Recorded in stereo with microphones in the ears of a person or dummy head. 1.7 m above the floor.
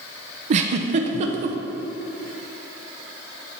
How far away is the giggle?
About 0.7 m.